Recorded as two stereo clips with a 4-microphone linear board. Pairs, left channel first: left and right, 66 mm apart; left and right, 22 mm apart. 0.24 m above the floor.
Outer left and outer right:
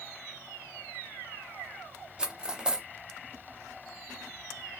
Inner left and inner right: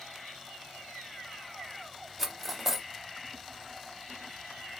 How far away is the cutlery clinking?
About 0.6 m.